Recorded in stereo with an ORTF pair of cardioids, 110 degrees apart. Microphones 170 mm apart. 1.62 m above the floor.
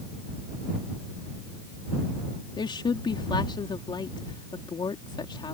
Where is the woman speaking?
25° left.